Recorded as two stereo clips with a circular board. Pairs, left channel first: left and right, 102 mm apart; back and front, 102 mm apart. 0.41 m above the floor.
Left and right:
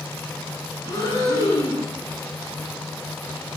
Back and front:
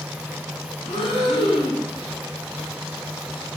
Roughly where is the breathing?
Behind left.